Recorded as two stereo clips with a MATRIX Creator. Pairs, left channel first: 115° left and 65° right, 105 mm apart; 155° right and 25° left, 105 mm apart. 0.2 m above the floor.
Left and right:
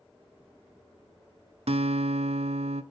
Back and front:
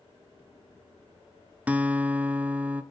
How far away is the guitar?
About 0.5 m.